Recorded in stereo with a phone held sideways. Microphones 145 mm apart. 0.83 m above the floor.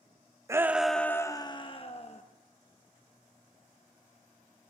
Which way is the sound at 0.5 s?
20° right (ahead or behind).